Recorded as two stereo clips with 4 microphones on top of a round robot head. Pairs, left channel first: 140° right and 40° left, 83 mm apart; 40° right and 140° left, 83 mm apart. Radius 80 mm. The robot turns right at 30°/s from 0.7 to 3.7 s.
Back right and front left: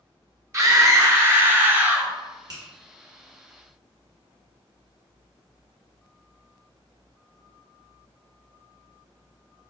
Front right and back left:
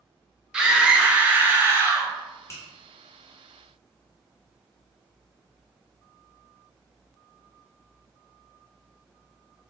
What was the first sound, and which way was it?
A scream, 65° left.